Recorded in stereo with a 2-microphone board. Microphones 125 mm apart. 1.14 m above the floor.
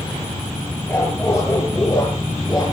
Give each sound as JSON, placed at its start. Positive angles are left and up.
{"t": 0.9, "sound": "a dog barking", "side_deg": 20, "distance_m": 9.0}